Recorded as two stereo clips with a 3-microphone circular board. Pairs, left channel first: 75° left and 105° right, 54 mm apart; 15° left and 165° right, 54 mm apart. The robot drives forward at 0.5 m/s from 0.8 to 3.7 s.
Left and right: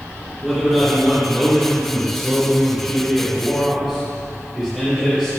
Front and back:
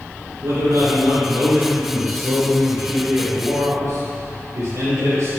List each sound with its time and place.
0.4 s a man speaking: 165° left, 3 m; by 5.3 s 170° left, 4.5 m